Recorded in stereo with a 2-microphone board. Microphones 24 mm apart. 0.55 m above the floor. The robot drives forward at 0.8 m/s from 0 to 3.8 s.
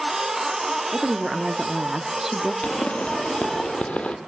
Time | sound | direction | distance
0.9 | a woman speaking | 20° right (ahead or behind) | 1.0 m
2.6 | a pop | 70° left (ahead or behind) | 2 m